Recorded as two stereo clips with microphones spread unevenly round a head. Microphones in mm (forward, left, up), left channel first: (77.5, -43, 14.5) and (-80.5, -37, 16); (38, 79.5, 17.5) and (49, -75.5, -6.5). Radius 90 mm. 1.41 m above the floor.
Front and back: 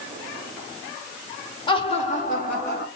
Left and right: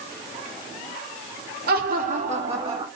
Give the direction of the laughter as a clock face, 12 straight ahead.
2 o'clock.